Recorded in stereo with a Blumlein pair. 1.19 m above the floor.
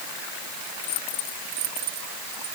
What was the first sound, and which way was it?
Only background noise.